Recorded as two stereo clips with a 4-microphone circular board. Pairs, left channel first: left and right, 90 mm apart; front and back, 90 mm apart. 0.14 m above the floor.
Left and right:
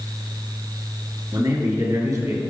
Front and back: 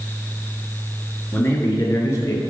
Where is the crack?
No crack in this recording.